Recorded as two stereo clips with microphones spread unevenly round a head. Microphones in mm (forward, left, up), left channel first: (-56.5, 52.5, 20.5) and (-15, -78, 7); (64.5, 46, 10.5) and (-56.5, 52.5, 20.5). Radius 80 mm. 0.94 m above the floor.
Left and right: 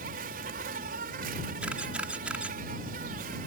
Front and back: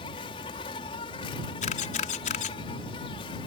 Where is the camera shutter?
10° left.